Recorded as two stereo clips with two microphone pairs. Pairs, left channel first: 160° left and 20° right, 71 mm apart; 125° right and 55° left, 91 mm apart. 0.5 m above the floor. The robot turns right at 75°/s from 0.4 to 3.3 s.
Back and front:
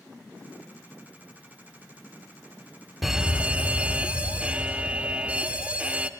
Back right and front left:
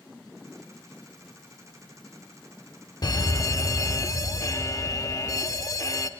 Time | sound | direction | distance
3.0 | an alarm | 105° right | 0.6 m